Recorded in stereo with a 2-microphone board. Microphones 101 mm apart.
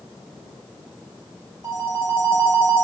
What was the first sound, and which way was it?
A phone ringing, 30° right (ahead or behind).